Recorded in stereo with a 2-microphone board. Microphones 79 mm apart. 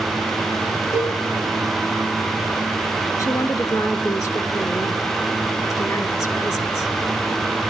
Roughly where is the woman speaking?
Left.